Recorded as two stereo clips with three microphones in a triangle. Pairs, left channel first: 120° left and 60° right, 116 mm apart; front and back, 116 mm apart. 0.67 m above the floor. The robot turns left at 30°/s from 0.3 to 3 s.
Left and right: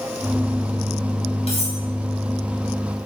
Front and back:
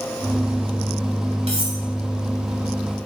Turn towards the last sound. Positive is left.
turn(degrees=100)